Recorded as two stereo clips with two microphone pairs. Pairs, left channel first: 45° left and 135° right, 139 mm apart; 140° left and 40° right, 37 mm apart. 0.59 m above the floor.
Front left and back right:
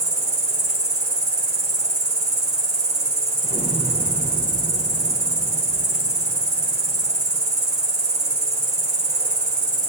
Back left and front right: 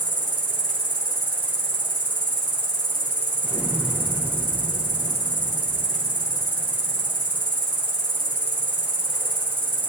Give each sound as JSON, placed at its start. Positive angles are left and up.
{"t": 0.0, "sound": "an insect", "azimuth_deg": -70, "distance_m": 3.0}
{"t": 3.4, "sound": "an explosion", "azimuth_deg": -120, "distance_m": 6.0}